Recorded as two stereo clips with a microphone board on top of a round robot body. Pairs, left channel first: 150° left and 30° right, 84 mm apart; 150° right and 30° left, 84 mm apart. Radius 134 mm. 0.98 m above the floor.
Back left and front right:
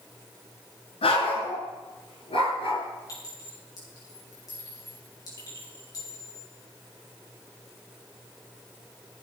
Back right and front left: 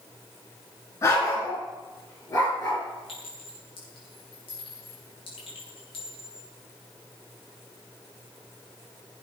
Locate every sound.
1.0 s a dog barking: 155° left, 4.5 m; by 2.8 s 170° left, 5.5 m
3.1 s a clink: 160° right, 7.5 m